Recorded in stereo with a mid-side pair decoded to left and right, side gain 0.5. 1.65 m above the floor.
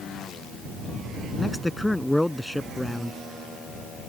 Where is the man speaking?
Straight ahead.